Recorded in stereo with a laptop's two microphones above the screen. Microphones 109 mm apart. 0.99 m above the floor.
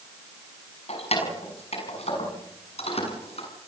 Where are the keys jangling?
75° left (ahead or behind), 6 m; by 3.5 s 70° left (ahead or behind), 7.5 m.